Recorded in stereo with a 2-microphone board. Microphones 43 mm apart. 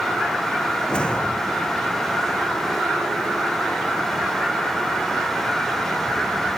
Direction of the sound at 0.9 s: 25° left (ahead or behind).